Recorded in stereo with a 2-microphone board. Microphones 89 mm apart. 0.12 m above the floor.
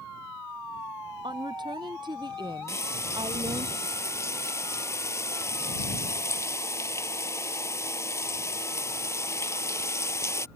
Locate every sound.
1.2 s a woman speaking: 55° right (ahead or behind)
2.7 s frying: 35° left (ahead or behind)